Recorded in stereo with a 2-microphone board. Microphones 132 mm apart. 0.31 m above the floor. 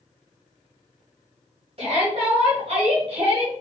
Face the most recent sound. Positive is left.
turn(degrees=-45)  # may be behind; listen again after turning